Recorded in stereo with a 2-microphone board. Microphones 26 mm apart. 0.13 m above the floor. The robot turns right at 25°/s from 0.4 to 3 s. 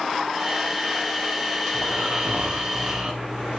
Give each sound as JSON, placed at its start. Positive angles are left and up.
{"t": 1.7, "sound": "snoring", "azimuth_deg": -80, "distance_m": 6.0}